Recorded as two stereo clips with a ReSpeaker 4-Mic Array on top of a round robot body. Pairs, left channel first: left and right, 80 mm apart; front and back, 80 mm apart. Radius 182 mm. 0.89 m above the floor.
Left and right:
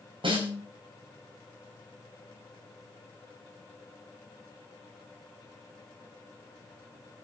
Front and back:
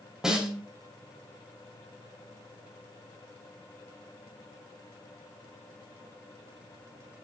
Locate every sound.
0.2 s a snare drum: 95° right, 5 m